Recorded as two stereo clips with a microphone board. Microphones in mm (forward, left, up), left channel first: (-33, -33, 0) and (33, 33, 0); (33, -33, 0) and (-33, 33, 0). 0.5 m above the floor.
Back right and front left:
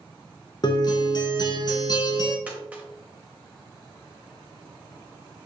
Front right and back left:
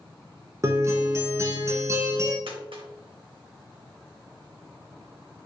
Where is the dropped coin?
120° left, 1.0 m.